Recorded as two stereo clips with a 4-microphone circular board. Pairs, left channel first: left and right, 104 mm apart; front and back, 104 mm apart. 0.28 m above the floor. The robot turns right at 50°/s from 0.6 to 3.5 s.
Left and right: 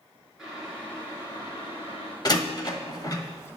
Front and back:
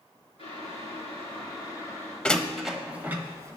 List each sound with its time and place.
0.4 s boiling: 5° right, 4 m; by 2.1 s 75° left, 4 m
2.2 s a door slam: 75° left, 1.0 m; by 3.6 s 135° left, 1.0 m